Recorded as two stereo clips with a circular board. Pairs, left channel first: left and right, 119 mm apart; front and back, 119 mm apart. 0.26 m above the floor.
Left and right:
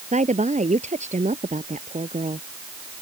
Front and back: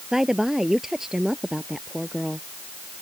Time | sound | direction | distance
0.1 | a woman speaking | 95° right | ?